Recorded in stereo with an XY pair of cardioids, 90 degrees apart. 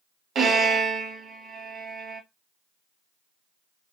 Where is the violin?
60° right, 1.1 m.